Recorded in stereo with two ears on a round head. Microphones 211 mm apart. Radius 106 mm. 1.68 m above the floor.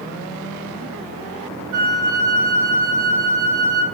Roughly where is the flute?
Right.